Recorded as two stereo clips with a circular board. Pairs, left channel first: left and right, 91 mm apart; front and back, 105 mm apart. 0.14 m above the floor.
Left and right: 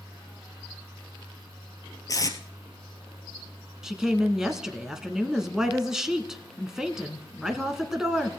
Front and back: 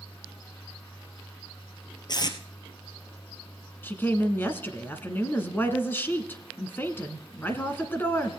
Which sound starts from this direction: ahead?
A woman speaking, at 3.8 s.